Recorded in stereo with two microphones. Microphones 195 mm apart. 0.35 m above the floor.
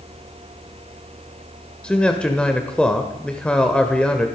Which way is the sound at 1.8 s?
5° left (ahead or behind).